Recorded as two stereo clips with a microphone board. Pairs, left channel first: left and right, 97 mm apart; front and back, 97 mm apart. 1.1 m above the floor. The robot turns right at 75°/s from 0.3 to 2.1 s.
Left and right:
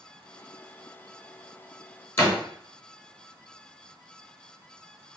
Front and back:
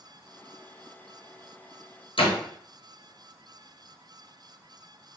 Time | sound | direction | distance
2.2 | a door slam | 25° left | 0.9 m